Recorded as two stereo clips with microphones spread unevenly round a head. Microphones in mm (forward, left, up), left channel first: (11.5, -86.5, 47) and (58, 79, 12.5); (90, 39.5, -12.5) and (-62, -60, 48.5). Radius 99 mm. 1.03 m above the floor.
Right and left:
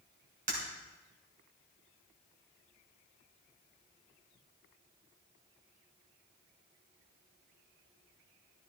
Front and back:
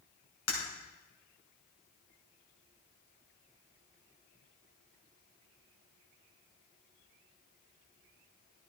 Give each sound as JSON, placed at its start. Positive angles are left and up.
{"t": 0.5, "sound": "breaking glass", "azimuth_deg": 30, "distance_m": 5.5}